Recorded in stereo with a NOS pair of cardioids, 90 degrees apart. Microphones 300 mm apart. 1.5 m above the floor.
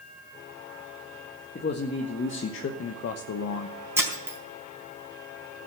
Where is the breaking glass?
10° right, 4 m.